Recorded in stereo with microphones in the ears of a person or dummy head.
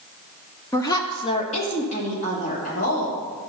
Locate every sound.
0.7 s a woman speaking: 15° left (ahead or behind), 0.8 m; by 3.5 s 40° left (ahead or behind), 3.5 m